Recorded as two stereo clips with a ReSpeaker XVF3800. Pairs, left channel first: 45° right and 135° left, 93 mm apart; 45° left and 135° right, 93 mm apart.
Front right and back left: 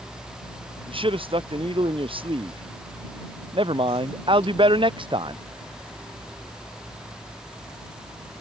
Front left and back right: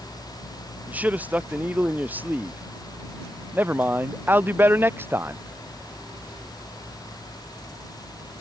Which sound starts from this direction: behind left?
A man speaking, at 0.9 s.